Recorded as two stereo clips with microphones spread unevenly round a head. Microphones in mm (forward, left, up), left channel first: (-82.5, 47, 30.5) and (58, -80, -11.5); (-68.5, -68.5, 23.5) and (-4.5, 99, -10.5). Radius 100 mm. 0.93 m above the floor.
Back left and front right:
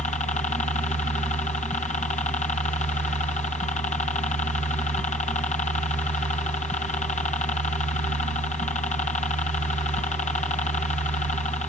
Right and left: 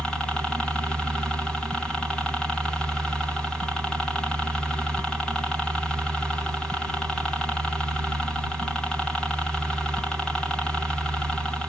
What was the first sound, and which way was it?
A helicopter, 145° left.